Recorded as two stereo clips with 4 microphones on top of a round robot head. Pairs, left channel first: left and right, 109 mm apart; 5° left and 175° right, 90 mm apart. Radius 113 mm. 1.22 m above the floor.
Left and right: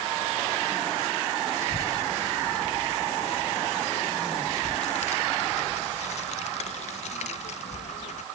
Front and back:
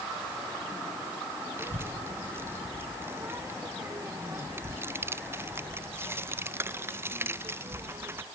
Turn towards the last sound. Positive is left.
turn(degrees=120)